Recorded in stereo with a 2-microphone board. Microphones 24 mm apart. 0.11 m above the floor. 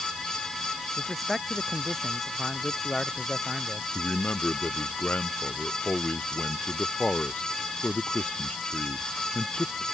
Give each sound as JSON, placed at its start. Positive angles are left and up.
{"t": 1.0, "sound": "a man speaking", "side_deg": 5}
{"t": 4.0, "sound": "a man speaking", "side_deg": 70}